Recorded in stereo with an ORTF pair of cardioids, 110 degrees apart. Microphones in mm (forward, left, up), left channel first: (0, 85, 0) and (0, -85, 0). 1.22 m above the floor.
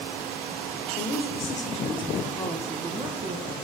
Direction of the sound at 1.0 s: 60° left.